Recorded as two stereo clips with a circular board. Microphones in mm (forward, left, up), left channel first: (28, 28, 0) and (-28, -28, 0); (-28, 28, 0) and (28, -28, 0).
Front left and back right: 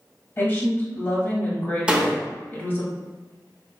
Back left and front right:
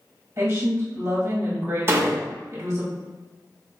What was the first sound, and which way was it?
A woman speaking, 5° right.